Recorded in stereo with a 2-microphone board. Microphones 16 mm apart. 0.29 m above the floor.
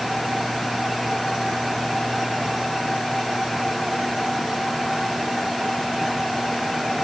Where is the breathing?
I don't hear breathing.